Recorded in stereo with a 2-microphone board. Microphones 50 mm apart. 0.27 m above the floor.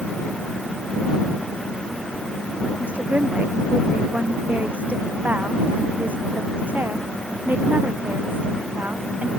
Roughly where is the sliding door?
I don't hear a sliding door.